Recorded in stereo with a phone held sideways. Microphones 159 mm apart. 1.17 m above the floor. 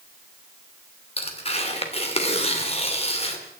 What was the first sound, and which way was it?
Tearing paper, 40° left (ahead or behind).